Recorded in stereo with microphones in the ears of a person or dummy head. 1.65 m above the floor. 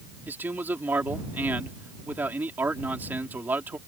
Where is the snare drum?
I don't hear a snare drum.